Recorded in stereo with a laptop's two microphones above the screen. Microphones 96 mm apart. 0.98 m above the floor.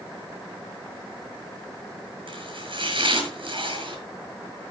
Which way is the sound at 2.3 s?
65° right (ahead or behind).